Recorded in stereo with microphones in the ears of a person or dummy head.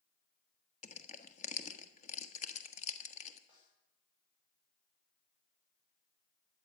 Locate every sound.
0.8 s crushing: 45° left (ahead or behind), 1.3 m
3.5 s a snare drum: 30° left (ahead or behind), 7 m